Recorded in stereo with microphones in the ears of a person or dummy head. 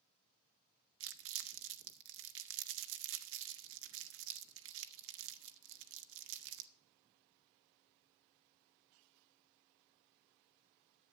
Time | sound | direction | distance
1.0 | crumpling | 70° right (ahead or behind) | 0.8 m